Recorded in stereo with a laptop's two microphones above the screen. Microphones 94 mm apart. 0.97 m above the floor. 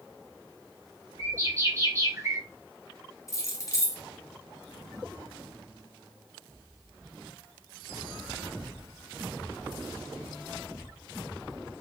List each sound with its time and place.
1.2 s a bird: 30° right (ahead or behind), 0.7 m
3.3 s keys jangling: 35° left (ahead or behind), 0.6 m